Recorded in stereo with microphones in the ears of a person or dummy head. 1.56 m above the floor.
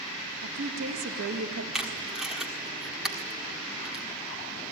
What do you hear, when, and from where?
0.4 s a woman speaking: 60° right (ahead or behind), 3.5 m; by 1.6 s 85° right, 2.5 m
1.7 s tape being pulled: 5° right (ahead or behind), 1.4 m